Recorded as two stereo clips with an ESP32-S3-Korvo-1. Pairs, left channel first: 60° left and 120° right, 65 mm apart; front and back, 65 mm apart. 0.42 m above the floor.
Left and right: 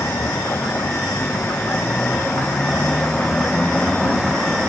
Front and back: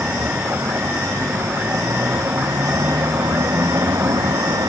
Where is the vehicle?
120° left; by 4.7 s 150° left.